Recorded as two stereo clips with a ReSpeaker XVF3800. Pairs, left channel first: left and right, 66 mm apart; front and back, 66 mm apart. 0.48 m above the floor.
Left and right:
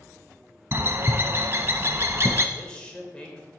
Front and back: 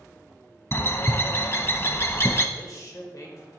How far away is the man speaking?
About 1.4 m.